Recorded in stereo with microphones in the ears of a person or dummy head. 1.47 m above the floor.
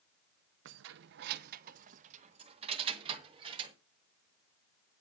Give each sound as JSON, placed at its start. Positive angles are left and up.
{"t": 0.7, "sound": "keys jangling", "side_deg": -60, "distance_m": 0.6}